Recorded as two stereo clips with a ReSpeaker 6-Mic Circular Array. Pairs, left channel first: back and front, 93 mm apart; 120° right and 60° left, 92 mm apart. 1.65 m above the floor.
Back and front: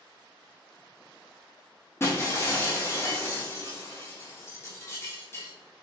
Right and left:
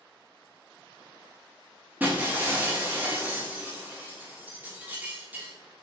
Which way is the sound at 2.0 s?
125° left.